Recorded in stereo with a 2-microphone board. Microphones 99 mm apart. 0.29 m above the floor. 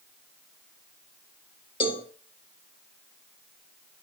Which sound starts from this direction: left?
A cowbell, at 1.8 s.